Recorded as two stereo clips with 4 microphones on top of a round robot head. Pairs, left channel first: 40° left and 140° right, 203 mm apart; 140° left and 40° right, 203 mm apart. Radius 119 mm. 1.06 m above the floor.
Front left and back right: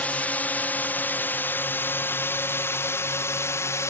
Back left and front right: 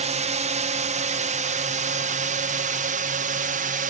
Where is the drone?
40° right; by 3.9 s 30° right.